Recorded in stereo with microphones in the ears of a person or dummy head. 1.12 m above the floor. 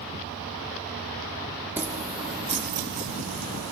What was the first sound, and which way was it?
Keys jangling, 10° right (ahead or behind).